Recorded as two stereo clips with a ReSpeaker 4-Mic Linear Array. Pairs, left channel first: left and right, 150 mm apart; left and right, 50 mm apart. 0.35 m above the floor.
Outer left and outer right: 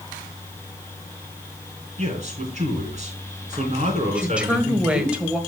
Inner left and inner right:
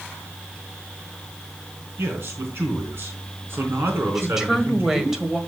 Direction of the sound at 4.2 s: 5° right (ahead or behind).